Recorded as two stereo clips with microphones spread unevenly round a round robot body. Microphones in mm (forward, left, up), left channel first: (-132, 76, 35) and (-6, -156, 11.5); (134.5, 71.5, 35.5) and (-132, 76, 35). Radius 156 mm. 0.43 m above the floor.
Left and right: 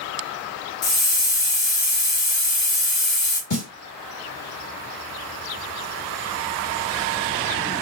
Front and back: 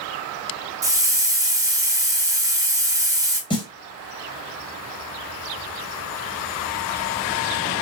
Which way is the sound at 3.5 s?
70° left.